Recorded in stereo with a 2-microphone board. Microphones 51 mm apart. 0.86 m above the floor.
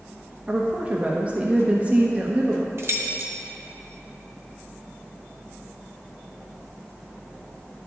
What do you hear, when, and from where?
0.5 s a woman speaking: 30° right (ahead or behind), 0.9 m
2.8 s keys jangling: 60° right (ahead or behind), 0.9 m